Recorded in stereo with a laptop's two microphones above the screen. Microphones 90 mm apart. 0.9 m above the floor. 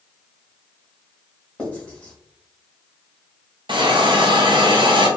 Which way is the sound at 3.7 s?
60° right (ahead or behind).